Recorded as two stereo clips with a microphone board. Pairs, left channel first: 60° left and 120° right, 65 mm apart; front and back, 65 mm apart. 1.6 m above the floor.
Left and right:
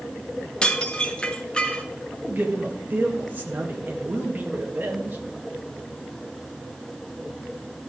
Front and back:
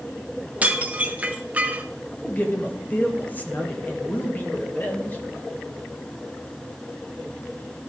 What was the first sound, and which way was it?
Dishes clattering, 125° left.